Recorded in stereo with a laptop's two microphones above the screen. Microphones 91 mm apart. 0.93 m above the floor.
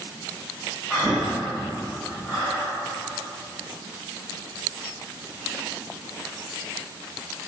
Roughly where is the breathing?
Centre.